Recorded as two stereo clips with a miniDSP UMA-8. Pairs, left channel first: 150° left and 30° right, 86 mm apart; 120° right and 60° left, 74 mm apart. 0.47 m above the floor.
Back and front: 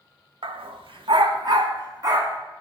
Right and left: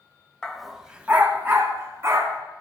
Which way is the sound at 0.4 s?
40° right.